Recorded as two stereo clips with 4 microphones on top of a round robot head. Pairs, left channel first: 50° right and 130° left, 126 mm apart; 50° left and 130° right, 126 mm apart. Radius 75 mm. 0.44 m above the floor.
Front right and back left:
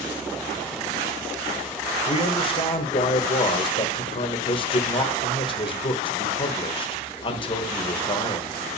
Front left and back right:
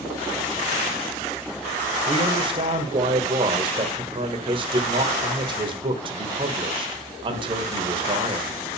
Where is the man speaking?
90° right, 1.6 m.